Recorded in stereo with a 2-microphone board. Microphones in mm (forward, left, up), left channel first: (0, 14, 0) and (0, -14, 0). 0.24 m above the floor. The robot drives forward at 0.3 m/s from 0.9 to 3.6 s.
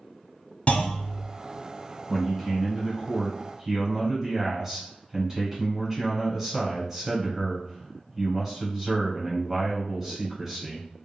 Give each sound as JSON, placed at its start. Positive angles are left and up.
{"t": 0.7, "sound": "a clunk", "side_deg": 50, "distance_m": 0.7}
{"t": 2.1, "sound": "a man speaking", "side_deg": -10, "distance_m": 1.3}